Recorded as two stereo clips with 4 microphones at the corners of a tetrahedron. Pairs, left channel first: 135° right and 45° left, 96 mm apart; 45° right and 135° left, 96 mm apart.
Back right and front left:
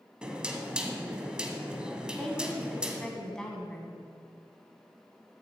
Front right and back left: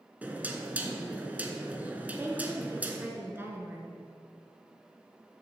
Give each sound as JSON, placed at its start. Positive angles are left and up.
{"t": 0.2, "sound": "knocking", "azimuth_deg": 105, "distance_m": 0.8}
{"t": 2.1, "sound": "a woman speaking", "azimuth_deg": 150, "distance_m": 1.1}